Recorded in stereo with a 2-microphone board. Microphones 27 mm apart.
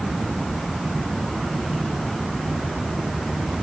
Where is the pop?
I don't hear a pop.